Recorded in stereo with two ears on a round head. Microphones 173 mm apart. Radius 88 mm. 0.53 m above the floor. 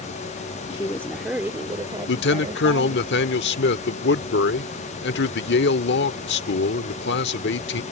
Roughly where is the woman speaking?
Left.